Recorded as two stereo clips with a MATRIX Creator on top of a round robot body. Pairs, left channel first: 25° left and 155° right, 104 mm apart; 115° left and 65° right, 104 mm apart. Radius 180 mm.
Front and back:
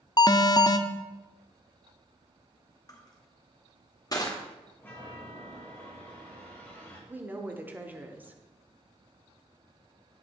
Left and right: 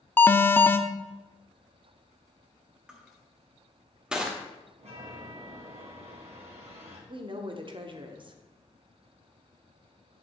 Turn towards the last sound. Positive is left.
turn(degrees=-90)